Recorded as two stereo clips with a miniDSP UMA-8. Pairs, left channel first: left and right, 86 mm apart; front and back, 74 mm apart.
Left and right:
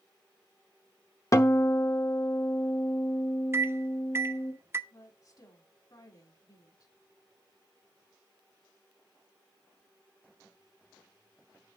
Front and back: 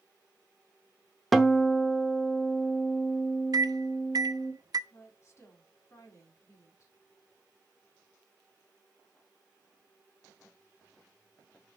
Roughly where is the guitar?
Left.